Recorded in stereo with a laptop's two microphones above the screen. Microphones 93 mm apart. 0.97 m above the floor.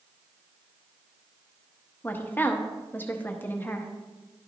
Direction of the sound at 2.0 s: 20° left (ahead or behind).